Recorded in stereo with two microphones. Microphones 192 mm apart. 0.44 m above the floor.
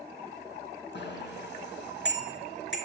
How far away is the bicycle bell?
About 3.5 m.